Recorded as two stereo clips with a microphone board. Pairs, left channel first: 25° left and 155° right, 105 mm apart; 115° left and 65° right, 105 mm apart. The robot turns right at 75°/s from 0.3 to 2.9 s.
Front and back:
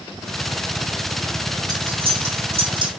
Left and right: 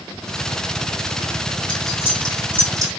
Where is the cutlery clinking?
150° left, 1.5 m; by 2.9 s 115° right, 1.5 m.